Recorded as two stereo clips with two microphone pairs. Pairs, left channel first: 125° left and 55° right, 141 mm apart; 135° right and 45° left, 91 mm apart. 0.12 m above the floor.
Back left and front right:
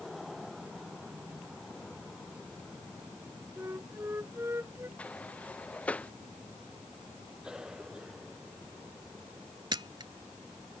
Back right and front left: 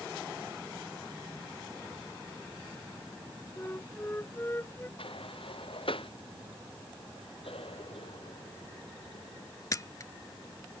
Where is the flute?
105° right.